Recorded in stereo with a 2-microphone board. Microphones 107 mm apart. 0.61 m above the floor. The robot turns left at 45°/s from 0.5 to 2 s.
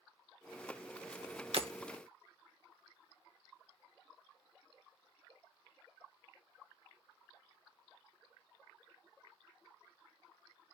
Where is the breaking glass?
65° right (ahead or behind), 1.1 m; by 1.7 s 55° right (ahead or behind), 1.1 m.